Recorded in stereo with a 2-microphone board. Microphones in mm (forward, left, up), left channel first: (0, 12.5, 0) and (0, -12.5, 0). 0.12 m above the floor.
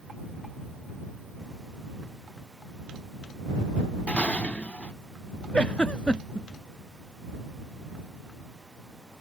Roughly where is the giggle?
Left.